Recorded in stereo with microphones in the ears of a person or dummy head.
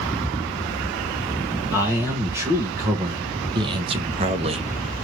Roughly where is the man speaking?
Centre.